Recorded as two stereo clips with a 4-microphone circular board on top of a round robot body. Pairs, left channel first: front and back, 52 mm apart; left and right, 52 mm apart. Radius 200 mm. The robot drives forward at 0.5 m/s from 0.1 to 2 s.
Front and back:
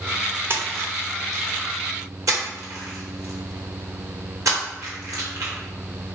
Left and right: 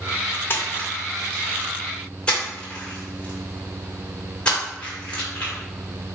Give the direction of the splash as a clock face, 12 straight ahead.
7 o'clock.